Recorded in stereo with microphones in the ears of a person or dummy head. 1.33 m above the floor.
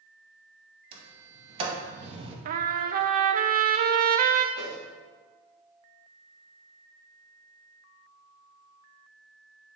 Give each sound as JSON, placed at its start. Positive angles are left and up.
{"t": 0.9, "sound": "a sliding door", "side_deg": -35, "distance_m": 1.6}
{"t": 2.5, "sound": "a trumpet", "side_deg": -50, "distance_m": 0.6}
{"t": 4.5, "sound": "a whoosh", "side_deg": -70, "distance_m": 3.0}